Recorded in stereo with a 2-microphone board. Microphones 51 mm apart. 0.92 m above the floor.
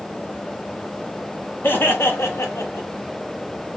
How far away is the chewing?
No chewing in this recording.